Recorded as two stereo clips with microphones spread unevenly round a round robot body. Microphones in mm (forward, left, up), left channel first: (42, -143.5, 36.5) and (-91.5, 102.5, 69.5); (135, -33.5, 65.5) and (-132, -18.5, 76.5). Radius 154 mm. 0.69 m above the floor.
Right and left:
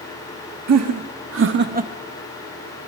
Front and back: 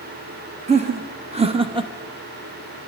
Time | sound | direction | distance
0.7 | laughter | 115° left | 1.6 m